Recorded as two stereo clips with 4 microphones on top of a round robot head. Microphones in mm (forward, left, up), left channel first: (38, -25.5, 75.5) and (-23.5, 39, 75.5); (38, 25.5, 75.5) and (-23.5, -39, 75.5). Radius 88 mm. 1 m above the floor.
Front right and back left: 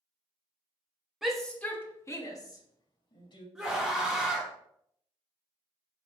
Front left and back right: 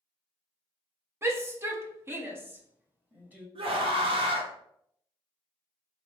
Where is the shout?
145° right, 0.8 m; by 3.5 s 65° right, 1.7 m.